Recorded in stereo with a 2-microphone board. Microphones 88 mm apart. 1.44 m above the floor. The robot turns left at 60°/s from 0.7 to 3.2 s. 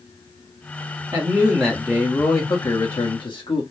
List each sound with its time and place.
1.1 s a man speaking: 145° right, 1.3 m; by 3.6 s 90° left, 1.3 m